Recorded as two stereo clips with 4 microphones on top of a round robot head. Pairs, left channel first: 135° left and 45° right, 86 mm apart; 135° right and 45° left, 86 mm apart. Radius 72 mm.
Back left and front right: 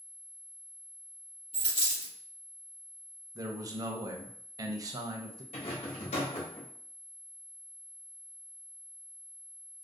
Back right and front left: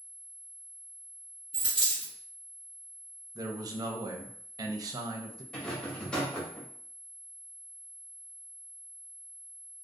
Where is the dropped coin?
120° left, 1.2 m.